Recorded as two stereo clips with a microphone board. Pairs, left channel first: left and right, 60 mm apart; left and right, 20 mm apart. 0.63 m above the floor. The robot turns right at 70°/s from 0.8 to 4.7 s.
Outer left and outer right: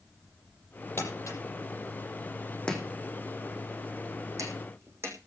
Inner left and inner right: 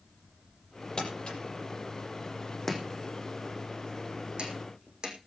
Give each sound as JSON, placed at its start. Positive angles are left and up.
{"t": 1.0, "sound": "crumpling", "side_deg": 45, "distance_m": 6.5}
{"t": 2.7, "sound": "chopping", "side_deg": 15, "distance_m": 5.0}